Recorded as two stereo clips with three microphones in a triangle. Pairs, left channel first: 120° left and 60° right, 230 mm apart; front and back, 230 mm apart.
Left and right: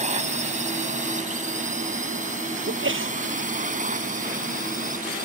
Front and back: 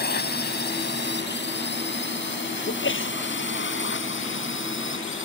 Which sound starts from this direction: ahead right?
A sneeze, at 2.7 s.